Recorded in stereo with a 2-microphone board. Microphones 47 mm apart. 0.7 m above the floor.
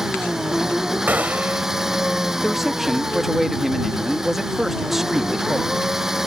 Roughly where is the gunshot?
Right.